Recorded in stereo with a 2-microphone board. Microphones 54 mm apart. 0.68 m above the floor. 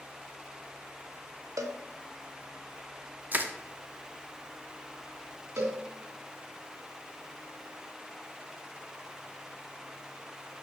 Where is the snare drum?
I don't hear a snare drum.